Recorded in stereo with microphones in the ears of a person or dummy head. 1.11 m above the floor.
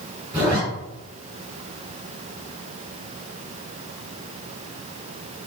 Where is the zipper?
30° right (ahead or behind), 3 m.